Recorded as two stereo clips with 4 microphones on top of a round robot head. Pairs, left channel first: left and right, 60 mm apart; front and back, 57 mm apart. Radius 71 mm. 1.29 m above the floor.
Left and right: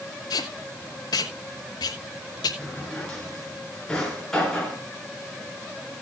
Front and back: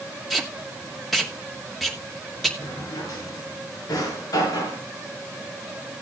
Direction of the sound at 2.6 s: 10° left.